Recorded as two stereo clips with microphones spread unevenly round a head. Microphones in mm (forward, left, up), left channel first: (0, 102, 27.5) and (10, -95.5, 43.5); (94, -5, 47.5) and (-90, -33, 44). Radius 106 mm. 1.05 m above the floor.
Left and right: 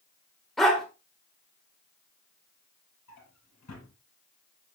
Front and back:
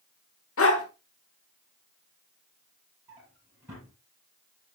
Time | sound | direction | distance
0.6 | a dog barking | 5° left | 1.5 m
3.1 | a drawer | 115° left | 5.5 m